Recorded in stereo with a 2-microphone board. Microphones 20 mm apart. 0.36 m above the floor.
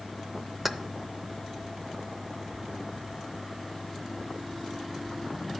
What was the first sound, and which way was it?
Keys jangling, 5° right (ahead or behind).